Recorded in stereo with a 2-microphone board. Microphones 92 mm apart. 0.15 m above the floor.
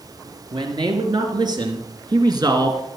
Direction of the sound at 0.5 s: 50° right (ahead or behind).